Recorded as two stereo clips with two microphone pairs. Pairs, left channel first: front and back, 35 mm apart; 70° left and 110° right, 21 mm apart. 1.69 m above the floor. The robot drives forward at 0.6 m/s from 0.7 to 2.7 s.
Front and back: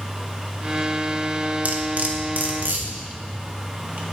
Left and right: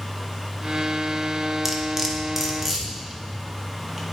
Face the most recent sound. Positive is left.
turn(degrees=180)